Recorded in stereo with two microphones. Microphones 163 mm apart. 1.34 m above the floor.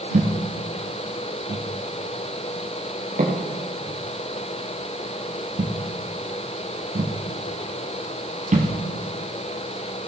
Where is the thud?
50° right (ahead or behind), 3 m.